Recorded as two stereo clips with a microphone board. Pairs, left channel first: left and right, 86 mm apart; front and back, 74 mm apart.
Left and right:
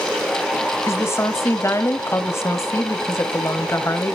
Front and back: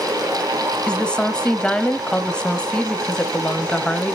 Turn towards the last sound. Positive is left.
turn(degrees=70)